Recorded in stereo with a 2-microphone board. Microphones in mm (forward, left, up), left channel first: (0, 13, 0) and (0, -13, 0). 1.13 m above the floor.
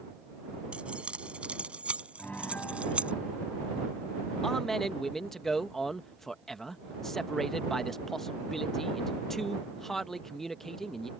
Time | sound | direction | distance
0.7 | keys jangling | 50° right (ahead or behind) | ?
2.2 | a piano | 75° left (ahead or behind) | ?
4.4 | a man speaking | 15° left (ahead or behind) | ?